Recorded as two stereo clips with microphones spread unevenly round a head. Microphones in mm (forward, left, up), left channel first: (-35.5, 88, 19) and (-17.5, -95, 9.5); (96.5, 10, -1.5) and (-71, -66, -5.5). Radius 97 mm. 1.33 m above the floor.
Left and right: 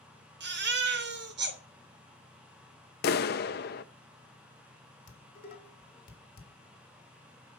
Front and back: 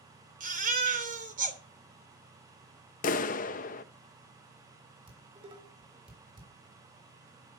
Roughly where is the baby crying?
Right.